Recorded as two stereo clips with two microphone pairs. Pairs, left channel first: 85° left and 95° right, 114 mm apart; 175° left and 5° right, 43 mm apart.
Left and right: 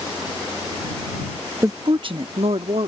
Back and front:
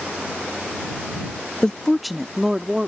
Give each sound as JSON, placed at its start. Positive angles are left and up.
{"t": 1.6, "sound": "a woman speaking", "azimuth_deg": -140}